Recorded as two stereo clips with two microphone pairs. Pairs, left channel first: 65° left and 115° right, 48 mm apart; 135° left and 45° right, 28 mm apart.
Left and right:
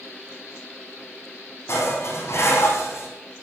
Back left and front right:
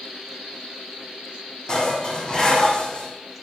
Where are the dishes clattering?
80° left, 4 m.